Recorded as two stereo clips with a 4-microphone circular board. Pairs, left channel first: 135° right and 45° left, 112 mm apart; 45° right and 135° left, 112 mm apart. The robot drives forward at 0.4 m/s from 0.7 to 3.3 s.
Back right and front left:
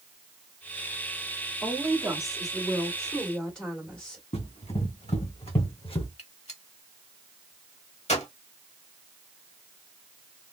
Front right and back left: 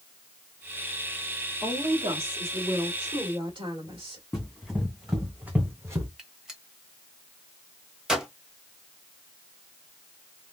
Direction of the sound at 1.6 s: 120° left.